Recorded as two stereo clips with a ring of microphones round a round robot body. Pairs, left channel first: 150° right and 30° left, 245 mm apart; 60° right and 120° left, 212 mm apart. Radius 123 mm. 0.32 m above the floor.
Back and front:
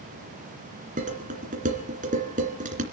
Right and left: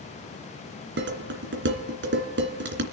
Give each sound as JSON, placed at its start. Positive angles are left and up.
{"t": 1.0, "sound": "dishes clattering", "azimuth_deg": 90, "distance_m": 2.5}